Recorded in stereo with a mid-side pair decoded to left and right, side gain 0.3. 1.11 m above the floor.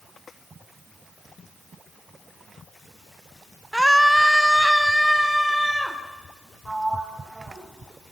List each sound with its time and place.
3.7 s a scream: 10° right, 0.7 m; by 6.0 s 5° left, 3.5 m
6.7 s a sliding door: 20° right, 6 m